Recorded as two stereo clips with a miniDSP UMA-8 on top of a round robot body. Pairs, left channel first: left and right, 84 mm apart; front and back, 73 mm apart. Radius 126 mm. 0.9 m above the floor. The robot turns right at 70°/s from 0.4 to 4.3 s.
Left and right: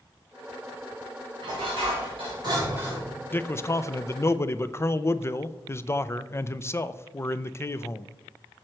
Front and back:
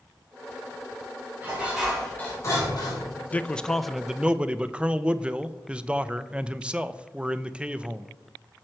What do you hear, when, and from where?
1.4 s dishes clattering: 120° right, 4 m; by 3.1 s 5° right, 4 m
3.3 s a man speaking: 45° left, 0.5 m; by 8.1 s 115° left, 0.5 m